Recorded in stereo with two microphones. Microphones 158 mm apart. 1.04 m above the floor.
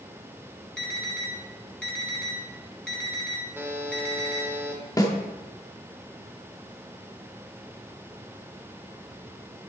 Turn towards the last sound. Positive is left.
turn(degrees=25)  # may be behind; listen again after turning